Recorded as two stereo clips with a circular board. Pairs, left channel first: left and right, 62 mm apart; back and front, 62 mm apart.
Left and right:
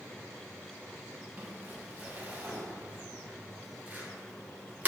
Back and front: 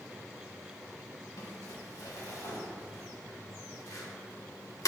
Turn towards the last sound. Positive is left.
turn(degrees=-155)